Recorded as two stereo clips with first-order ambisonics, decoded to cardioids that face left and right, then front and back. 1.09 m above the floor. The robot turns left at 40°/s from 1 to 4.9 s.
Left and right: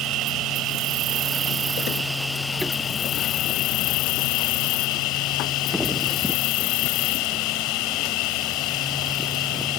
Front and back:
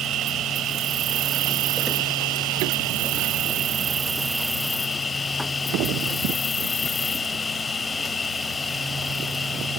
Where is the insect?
130° right; by 9.8 s 75° left.